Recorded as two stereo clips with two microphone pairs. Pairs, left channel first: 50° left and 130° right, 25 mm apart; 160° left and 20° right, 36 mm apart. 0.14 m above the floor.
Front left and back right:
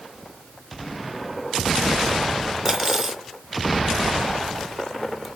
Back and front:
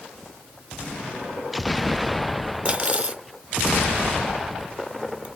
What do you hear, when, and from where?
2.6 s cutlery clinking: 55° right, 1.0 m